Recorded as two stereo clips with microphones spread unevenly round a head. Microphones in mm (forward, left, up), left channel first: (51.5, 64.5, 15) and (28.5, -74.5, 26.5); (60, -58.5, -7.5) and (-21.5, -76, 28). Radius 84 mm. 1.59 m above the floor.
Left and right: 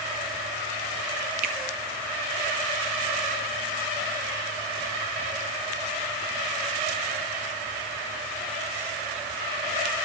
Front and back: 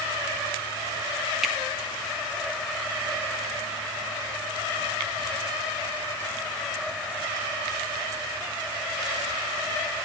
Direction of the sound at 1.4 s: 90° right.